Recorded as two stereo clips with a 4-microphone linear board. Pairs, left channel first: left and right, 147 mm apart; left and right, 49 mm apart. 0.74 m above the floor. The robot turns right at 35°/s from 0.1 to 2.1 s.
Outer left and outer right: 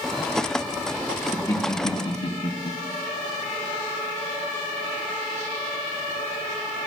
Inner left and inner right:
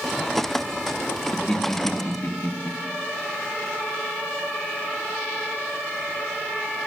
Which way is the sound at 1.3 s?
15° left (ahead or behind).